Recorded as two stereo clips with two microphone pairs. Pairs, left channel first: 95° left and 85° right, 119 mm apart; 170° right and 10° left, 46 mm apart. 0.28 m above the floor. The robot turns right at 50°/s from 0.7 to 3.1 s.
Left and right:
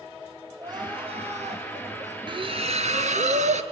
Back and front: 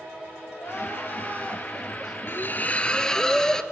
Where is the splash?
135° right, 0.7 m; by 3.6 s 95° right, 0.7 m.